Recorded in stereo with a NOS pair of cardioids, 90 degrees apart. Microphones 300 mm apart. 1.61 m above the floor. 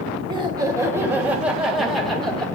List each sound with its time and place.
0.3 s laughter: 15° right, 2.5 m; by 2.5 s 5° left, 3.5 m